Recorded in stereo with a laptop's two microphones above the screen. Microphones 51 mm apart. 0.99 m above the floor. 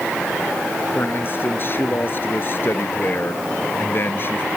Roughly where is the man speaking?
Left.